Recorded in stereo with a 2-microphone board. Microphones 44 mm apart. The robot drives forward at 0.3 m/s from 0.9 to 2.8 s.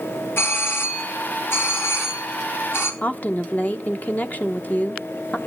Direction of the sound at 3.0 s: 40° left (ahead or behind).